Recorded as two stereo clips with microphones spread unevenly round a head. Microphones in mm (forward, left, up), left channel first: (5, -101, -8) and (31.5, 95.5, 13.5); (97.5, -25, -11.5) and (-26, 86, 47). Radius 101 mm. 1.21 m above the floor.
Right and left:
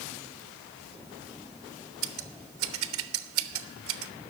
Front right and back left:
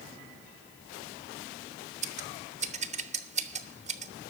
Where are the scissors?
100° left, 1.0 m.